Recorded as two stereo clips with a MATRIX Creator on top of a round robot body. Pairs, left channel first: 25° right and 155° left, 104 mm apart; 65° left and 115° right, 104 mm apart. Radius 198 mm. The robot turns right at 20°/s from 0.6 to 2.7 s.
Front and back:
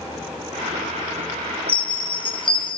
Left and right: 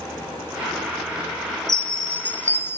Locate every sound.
1.7 s a chime: 20° right, 1.3 m; by 2.8 s straight ahead, 1.3 m